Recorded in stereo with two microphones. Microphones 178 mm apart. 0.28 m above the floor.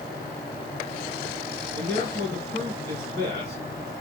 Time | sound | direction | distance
1.7 | a man speaking | 70° right (ahead or behind) | 3.5 m